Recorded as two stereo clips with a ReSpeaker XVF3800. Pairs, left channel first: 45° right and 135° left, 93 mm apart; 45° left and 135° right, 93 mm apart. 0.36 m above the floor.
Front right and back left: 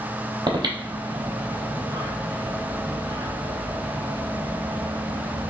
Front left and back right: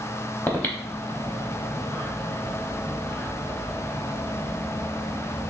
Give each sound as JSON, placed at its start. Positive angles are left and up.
{"t": 0.5, "sound": "breathing", "azimuth_deg": 110, "distance_m": 0.8}